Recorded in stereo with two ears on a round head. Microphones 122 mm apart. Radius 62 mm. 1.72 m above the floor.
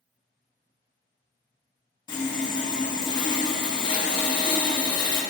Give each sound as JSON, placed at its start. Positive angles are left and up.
{"t": 2.1, "sound": "sawing", "side_deg": 35, "distance_m": 1.0}